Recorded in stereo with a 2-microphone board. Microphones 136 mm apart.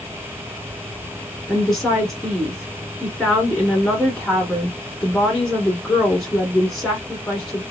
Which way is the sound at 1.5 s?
5° left (ahead or behind).